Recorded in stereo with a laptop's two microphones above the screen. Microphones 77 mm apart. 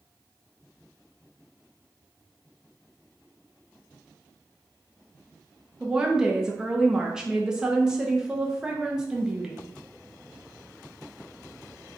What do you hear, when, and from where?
5.8 s a woman speaking: 10° right (ahead or behind), 0.6 m